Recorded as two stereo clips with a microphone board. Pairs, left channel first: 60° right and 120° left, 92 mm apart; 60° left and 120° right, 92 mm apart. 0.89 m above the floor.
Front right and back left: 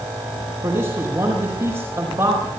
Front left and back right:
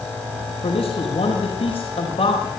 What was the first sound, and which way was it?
A man speaking, 70° left.